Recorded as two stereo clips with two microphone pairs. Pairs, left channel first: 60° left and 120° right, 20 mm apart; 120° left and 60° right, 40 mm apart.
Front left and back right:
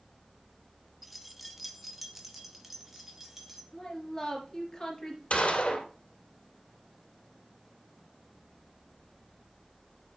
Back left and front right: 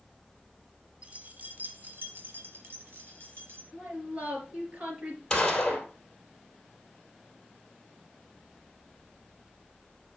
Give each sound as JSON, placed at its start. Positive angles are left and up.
{"t": 1.0, "sound": "keys jangling", "azimuth_deg": -35, "distance_m": 1.1}
{"t": 3.7, "sound": "a woman speaking", "azimuth_deg": -5, "distance_m": 3.5}
{"t": 5.3, "sound": "a gunshot", "azimuth_deg": 45, "distance_m": 2.0}